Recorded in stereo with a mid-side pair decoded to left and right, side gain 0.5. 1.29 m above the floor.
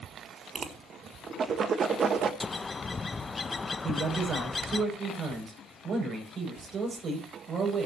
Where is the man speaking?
50° right, 7 m.